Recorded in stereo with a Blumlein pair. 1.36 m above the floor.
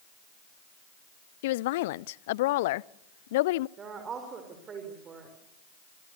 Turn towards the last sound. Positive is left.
turn(degrees=-25)